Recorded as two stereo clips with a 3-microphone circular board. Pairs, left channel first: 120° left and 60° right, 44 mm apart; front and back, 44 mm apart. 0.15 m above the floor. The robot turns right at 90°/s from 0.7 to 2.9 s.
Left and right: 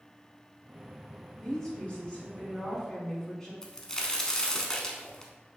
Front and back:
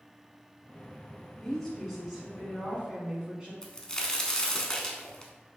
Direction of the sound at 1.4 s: 50° left.